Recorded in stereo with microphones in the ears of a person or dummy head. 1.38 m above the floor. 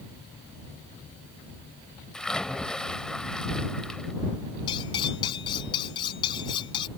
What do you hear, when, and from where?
2.1 s a splash: centre (ahead or behind)
4.7 s cutlery clinking: 30° left (ahead or behind)